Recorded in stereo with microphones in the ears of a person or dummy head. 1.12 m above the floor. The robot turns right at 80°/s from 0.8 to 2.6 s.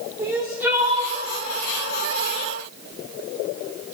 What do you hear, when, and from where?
0.2 s crying: 15° right (ahead or behind), 1.1 m; by 1.2 s 40° right (ahead or behind), 1.1 m